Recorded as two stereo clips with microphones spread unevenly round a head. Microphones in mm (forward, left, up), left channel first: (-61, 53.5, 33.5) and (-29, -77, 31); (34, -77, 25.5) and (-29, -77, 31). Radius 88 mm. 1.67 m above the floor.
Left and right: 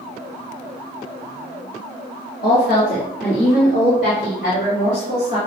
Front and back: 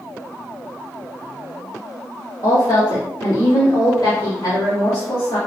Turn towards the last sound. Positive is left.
turn(degrees=55)